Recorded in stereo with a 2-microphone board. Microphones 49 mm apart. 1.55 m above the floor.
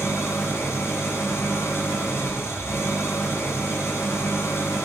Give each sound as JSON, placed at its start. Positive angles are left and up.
{"t": 0.0, "sound": "an engine running", "side_deg": 75, "distance_m": 3.5}